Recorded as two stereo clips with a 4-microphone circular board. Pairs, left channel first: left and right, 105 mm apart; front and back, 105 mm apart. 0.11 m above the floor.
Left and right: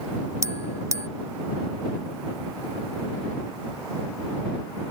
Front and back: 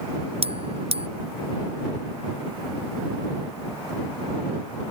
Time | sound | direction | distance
0.4 | a bell | 155° right | ?